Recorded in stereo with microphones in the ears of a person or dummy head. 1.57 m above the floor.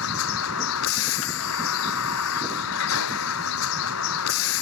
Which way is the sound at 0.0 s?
85° left.